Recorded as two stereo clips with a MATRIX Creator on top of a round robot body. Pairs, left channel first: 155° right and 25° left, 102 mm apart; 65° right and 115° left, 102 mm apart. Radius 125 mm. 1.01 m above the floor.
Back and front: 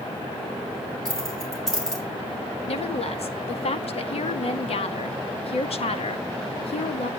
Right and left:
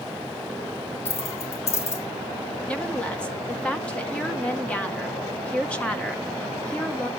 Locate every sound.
1.1 s keys jangling: 70° right, 4 m
2.7 s a woman speaking: 145° right, 1.8 m